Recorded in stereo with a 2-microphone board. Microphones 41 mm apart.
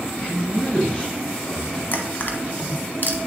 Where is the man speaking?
30° left (ahead or behind), 1.3 m.